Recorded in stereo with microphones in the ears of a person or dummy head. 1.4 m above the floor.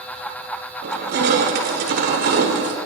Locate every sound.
0.8 s crushing: 55° right (ahead or behind), 1.0 m